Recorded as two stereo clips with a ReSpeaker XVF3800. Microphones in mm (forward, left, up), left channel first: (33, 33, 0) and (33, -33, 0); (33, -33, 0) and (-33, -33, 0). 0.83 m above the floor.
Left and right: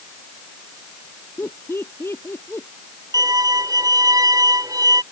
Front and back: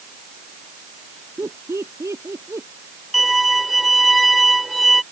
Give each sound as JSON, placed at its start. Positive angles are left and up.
{"t": 1.4, "sound": "laughter", "azimuth_deg": 140}
{"t": 3.1, "sound": "a violin", "azimuth_deg": -90}